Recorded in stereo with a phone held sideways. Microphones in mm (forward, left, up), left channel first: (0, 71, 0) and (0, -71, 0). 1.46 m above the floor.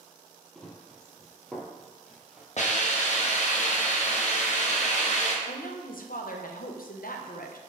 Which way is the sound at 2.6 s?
55° left (ahead or behind).